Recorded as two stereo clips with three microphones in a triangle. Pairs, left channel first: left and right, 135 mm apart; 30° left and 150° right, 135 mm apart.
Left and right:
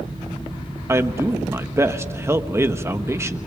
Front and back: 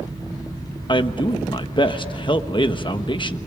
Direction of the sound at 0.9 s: 20° right.